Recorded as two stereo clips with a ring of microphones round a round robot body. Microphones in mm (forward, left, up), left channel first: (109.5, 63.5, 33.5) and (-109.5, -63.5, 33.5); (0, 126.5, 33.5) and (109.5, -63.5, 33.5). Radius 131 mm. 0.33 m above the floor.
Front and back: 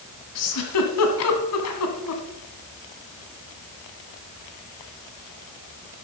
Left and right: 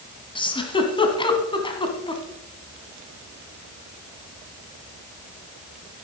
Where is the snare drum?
No snare drum in this recording.